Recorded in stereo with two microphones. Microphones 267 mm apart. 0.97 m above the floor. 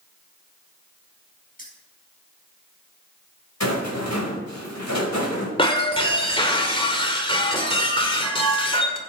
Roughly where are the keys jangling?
Left.